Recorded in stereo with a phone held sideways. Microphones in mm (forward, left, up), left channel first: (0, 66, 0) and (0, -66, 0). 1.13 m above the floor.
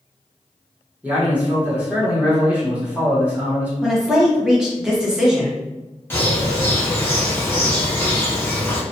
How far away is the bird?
About 0.7 m.